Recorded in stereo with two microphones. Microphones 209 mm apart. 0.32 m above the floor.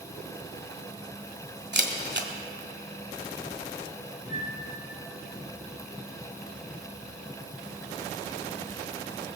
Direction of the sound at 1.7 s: 55° right (ahead or behind).